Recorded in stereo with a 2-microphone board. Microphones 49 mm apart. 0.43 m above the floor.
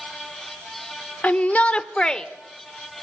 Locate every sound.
1.2 s a shout: 30° left (ahead or behind), 1.0 m; by 2.2 s 10° left (ahead or behind), 1.1 m